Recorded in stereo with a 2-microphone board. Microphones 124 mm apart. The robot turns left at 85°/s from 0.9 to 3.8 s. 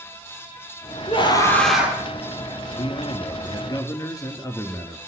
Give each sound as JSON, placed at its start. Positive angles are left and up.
{"t": 1.1, "sound": "a scream", "azimuth_deg": 55, "distance_m": 3.0}
{"t": 2.8, "sound": "a man speaking", "azimuth_deg": 125, "distance_m": 2.0}